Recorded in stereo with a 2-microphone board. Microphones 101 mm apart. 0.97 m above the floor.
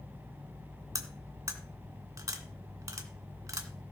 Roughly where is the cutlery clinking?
Right.